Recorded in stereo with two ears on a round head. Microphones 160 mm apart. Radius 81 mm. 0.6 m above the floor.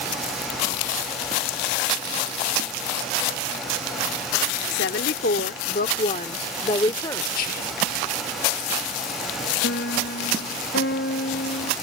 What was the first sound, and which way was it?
A woman speaking, 65° left (ahead or behind).